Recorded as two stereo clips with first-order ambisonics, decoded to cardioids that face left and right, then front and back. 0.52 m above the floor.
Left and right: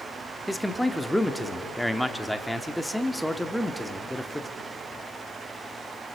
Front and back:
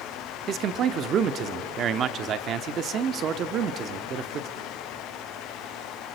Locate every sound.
0.5 s a man speaking: straight behind, 0.9 m